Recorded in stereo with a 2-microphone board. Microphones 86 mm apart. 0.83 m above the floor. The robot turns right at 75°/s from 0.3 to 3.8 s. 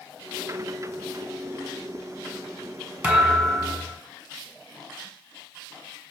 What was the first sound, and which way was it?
A thud, 20° right.